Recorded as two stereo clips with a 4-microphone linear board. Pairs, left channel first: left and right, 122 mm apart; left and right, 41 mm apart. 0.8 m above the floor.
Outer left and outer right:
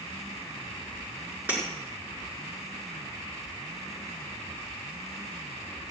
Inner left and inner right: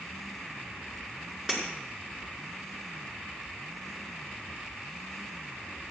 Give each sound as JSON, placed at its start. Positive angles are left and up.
{"t": 1.5, "sound": "breaking glass", "side_deg": -15, "distance_m": 5.5}